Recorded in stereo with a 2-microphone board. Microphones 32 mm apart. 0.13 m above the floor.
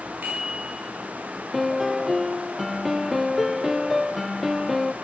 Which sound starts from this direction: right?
A bicycle bell, at 0.2 s.